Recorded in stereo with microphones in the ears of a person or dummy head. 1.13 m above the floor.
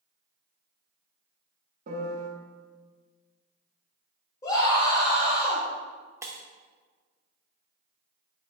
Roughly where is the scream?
Left.